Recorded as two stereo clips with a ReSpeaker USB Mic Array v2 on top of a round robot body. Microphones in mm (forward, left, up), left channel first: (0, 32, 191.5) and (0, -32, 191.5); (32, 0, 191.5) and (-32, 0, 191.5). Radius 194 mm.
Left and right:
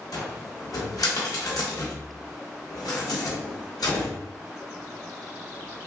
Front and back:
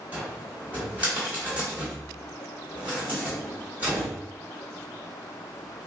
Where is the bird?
I don't hear a bird.